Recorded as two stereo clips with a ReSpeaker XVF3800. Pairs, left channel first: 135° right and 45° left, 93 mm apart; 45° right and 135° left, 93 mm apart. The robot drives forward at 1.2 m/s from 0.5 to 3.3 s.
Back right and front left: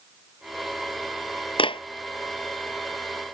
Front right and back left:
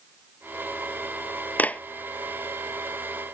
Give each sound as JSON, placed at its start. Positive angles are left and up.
{"t": 1.6, "sound": "a clap", "azimuth_deg": -120}